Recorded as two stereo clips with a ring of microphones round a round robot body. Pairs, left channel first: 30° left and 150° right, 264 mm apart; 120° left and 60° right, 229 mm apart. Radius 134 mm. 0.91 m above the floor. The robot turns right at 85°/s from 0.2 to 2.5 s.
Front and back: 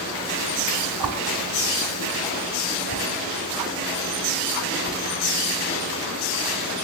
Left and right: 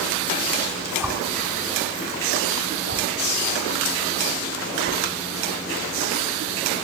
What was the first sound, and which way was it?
A whoosh, 150° right.